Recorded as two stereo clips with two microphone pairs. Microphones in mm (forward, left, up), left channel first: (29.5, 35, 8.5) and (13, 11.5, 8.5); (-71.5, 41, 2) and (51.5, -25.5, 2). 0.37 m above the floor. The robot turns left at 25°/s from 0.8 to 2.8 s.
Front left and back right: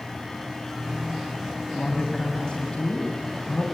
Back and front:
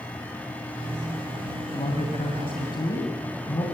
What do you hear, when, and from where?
1.7 s a man speaking: 125° left, 2.5 m; by 3.6 s 100° left, 2.5 m